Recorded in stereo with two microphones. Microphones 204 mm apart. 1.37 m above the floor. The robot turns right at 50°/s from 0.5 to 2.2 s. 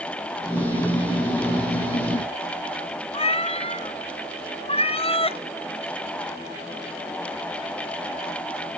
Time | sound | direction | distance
3.1 | a cat meowing | 30° left (ahead or behind) | 0.7 m